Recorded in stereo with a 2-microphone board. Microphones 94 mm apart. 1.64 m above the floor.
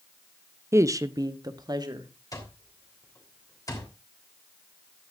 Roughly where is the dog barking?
No dog barking in this recording.